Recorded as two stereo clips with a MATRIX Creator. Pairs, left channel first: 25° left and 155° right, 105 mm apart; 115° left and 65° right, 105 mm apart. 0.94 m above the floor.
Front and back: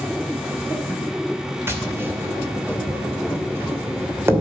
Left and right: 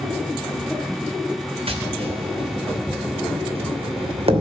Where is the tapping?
90° right, 2.5 m.